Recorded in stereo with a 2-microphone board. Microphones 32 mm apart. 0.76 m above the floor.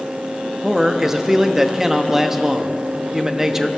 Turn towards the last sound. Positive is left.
turn(degrees=-10)  # may be behind; listen again after turning